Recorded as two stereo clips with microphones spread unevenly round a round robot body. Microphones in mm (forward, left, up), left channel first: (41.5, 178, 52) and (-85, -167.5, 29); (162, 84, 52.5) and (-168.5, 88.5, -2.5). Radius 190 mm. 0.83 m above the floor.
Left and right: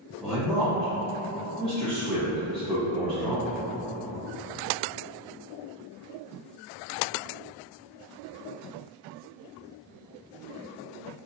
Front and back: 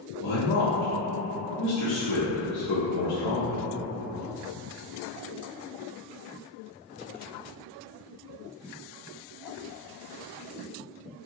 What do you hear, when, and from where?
0.2 s a man speaking: 20° right, 0.7 m